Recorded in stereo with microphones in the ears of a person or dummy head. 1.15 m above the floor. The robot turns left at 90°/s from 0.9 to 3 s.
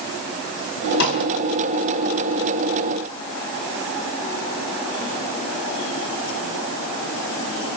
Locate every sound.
1.0 s a snare drum: 55° left (ahead or behind), 5 m; by 1.2 s 75° left (ahead or behind), 5 m